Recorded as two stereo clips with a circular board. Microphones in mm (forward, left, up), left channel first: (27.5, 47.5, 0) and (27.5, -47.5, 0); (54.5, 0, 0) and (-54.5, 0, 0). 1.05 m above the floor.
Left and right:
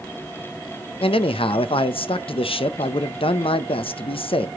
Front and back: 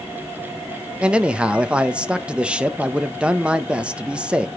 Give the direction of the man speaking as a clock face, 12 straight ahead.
9 o'clock.